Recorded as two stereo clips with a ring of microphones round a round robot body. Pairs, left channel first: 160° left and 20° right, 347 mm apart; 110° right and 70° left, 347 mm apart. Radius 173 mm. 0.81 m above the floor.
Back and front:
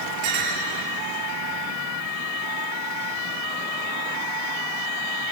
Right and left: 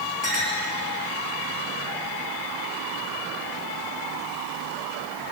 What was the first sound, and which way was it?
A clink, 65° right.